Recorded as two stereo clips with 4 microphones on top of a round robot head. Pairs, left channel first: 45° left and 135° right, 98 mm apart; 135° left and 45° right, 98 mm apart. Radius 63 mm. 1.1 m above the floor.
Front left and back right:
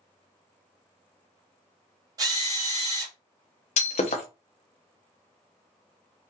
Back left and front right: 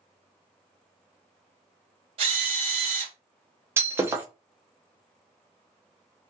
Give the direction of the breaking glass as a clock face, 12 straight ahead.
11 o'clock.